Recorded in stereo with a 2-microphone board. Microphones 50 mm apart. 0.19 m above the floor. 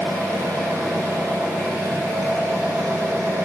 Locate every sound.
0.0 s an engine running: 80° right, 7 m